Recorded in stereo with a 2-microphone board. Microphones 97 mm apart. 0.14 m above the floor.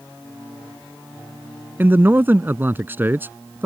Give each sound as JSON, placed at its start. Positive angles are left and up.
{"t": 1.8, "sound": "a man speaking", "side_deg": -20}